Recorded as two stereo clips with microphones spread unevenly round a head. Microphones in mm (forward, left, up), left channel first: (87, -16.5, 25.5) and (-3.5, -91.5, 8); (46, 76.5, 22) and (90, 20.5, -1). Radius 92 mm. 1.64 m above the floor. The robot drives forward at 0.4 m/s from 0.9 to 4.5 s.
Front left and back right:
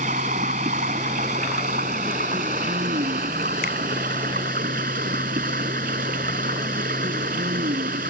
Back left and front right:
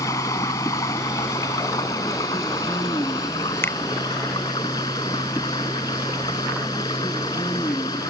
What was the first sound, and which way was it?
Running water, 170° left.